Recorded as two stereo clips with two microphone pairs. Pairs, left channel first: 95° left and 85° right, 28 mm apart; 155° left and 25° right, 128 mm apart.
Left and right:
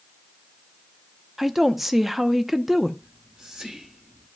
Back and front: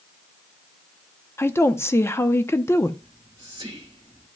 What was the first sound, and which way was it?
A woman speaking, 170° right.